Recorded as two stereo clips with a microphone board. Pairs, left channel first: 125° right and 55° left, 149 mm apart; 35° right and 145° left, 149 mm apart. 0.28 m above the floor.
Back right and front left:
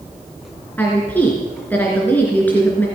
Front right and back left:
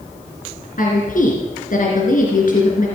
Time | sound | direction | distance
0.8 | a woman speaking | 45° right | 3 m